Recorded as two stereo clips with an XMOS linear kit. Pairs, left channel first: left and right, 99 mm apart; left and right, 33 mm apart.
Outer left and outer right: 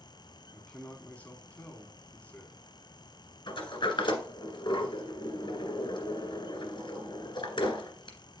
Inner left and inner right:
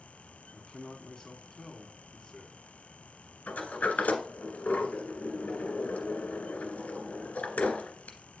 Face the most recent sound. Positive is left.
turn(degrees=60)  # may be behind; listen again after turning